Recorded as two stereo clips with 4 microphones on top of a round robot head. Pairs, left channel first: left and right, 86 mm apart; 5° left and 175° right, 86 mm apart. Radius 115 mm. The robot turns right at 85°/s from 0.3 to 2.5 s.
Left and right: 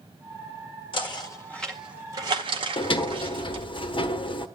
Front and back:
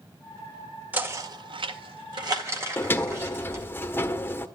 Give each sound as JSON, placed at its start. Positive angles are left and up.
{"t": 0.9, "sound": "knocking", "azimuth_deg": 110, "distance_m": 1.8}
{"t": 2.8, "sound": "a sliding door", "azimuth_deg": 70, "distance_m": 1.3}